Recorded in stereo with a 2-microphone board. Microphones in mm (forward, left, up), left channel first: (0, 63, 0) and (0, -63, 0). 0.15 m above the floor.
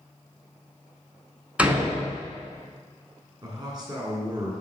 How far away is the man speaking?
About 1.6 m.